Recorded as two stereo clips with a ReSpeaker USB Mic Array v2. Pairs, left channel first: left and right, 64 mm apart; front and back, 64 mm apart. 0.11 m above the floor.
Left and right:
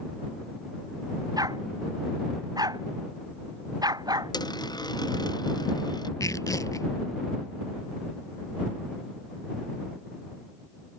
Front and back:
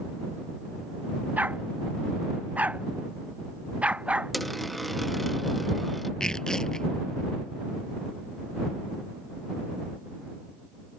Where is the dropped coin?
90° left.